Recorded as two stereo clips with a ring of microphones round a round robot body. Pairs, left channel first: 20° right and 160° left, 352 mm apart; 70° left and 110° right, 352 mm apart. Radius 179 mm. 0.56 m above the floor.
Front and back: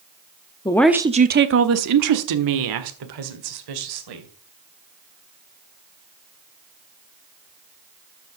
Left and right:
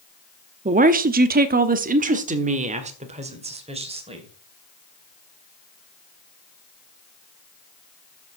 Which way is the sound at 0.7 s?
80° right.